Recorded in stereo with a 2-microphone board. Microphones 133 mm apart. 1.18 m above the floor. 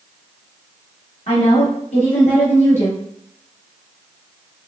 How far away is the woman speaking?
About 1.8 m.